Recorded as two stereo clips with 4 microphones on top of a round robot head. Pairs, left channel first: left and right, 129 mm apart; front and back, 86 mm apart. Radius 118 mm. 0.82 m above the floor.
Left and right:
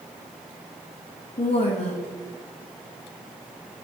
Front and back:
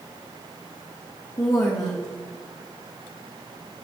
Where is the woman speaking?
50° left, 1.0 m.